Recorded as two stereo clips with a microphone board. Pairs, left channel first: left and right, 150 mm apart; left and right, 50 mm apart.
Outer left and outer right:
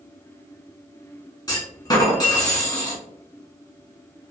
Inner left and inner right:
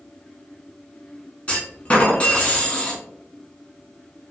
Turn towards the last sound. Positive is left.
turn(degrees=25)  # may be behind; listen again after turning